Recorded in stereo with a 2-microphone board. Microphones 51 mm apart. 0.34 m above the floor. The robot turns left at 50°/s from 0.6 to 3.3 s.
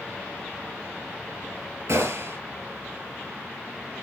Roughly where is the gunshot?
Right.